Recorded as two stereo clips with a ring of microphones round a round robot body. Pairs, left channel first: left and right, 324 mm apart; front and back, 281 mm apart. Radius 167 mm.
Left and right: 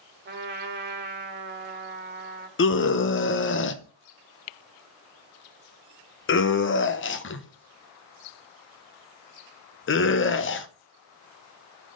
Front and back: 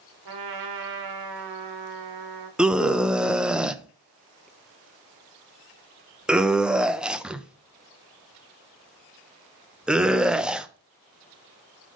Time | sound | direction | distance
0.2 | a trumpet | 150° right | 1.3 m
2.6 | a scream | 95° left | 0.8 m